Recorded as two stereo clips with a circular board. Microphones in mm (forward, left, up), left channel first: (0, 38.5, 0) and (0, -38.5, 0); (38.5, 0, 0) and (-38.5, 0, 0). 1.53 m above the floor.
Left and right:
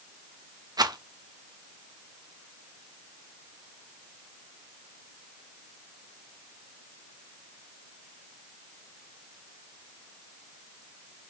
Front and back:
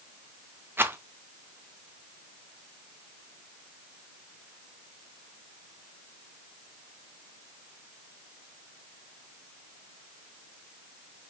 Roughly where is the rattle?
Behind right.